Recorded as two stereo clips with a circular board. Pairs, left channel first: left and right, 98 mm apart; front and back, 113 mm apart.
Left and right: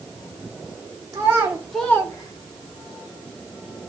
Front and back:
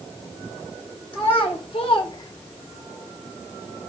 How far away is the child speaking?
About 0.9 m.